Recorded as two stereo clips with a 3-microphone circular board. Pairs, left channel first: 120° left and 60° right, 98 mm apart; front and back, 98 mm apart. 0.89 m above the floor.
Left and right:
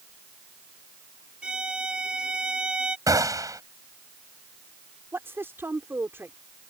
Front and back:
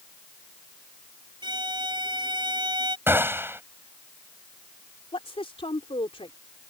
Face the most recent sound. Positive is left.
turn(degrees=5)